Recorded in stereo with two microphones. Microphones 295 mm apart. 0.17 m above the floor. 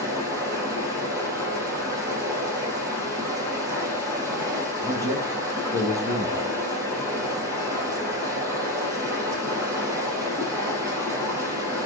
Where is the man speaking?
10° right (ahead or behind), 2.5 m.